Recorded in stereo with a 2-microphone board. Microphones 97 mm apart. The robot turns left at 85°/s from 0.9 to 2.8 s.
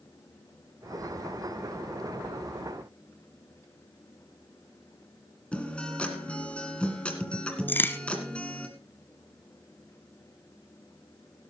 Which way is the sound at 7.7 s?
20° left (ahead or behind).